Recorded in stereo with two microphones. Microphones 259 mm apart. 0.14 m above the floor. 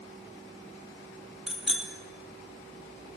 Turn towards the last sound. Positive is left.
turn(degrees=0)  # may be behind; listen again after turning